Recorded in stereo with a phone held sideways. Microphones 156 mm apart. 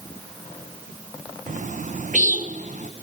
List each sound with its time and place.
1.5 s a bird: 55° right (ahead or behind), 0.7 m